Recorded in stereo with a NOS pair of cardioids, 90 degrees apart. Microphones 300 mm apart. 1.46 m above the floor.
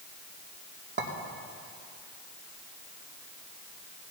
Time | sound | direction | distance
1.0 | a clink | 35° right | 2.5 m